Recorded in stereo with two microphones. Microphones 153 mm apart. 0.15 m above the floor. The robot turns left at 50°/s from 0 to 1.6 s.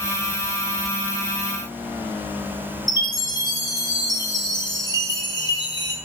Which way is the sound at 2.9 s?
30° left (ahead or behind).